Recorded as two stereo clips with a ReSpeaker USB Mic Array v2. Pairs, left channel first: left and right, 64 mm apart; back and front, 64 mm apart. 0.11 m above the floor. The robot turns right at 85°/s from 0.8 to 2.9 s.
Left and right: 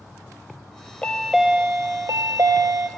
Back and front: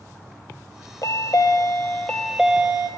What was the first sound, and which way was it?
A chime, 160° left.